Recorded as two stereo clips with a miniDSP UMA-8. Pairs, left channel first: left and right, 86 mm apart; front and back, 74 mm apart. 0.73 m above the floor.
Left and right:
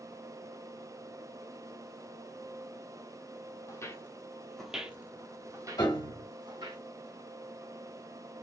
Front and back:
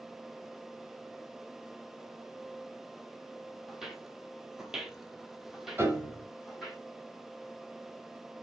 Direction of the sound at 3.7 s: 95° left.